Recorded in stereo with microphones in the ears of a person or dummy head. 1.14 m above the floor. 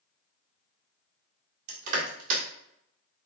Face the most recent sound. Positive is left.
turn(degrees=-50)  # may be behind; listen again after turning